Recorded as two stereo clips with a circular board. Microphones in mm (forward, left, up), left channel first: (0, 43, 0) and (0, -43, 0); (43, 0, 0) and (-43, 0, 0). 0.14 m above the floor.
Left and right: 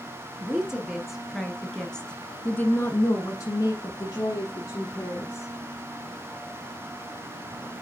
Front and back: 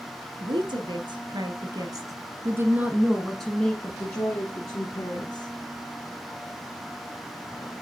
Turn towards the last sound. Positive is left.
turn(degrees=40)